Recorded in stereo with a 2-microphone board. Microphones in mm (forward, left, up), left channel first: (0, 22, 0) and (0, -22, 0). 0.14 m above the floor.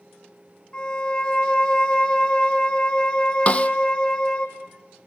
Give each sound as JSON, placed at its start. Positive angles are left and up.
{"t": 0.7, "sound": "a violin", "side_deg": 30, "distance_m": 4.5}
{"t": 3.5, "sound": "a snare drum", "side_deg": 30, "distance_m": 1.0}